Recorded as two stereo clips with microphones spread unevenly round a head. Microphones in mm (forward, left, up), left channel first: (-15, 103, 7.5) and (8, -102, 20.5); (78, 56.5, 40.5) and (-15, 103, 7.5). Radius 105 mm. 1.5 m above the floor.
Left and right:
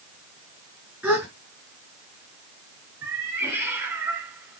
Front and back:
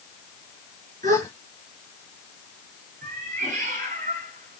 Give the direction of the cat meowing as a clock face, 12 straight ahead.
5 o'clock.